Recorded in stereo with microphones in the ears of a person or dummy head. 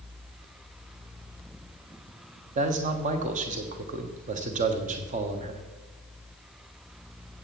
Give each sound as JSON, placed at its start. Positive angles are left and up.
{"t": 2.5, "sound": "a man speaking", "side_deg": -40, "distance_m": 1.3}